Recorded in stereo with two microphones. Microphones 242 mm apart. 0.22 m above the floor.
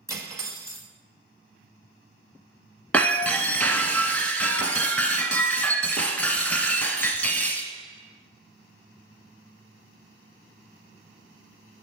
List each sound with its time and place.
0.1 s cutlery clinking: 15° right (ahead or behind), 0.8 m
2.9 s breaking glass: 5° left (ahead or behind), 0.6 m